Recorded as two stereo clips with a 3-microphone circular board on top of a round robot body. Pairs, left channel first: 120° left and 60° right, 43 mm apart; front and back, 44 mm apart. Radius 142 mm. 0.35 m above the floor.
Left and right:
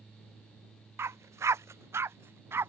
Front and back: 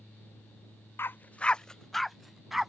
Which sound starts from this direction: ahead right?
A dog barking, at 1.0 s.